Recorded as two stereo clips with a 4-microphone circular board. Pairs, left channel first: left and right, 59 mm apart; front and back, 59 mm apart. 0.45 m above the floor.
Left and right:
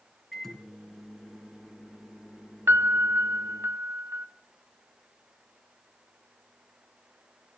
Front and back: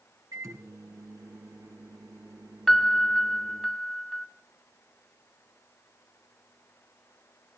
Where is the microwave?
Straight behind, 4 m.